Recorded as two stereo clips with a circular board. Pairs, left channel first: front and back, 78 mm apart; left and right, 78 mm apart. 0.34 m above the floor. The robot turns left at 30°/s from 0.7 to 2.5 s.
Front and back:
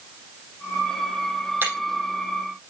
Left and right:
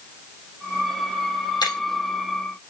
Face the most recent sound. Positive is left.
turn(degrees=95)